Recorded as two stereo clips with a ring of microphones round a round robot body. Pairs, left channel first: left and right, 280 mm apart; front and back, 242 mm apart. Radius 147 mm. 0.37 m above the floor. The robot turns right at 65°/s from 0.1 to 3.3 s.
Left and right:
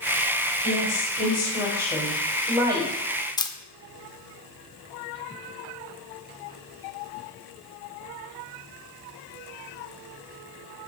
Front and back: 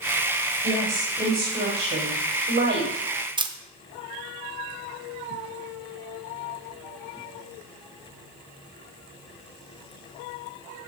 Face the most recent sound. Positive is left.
turn(degrees=140)